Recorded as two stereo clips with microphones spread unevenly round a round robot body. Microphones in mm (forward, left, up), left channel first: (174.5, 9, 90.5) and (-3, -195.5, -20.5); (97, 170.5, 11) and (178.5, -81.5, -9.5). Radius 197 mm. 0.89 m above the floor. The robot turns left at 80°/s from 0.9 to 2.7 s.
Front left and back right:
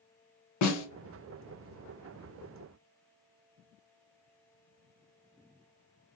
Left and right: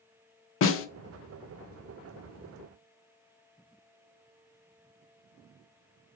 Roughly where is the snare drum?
Left.